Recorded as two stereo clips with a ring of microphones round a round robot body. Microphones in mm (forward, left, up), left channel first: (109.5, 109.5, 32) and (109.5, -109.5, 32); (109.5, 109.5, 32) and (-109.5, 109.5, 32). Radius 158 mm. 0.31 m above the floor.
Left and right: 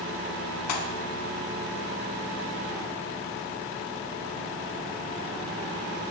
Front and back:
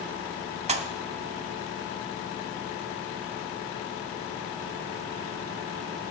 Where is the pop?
115° left, 0.5 m.